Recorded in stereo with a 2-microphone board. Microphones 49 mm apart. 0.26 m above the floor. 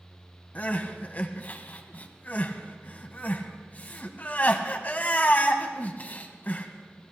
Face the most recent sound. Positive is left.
turn(degrees=35)  # may be behind; listen again after turning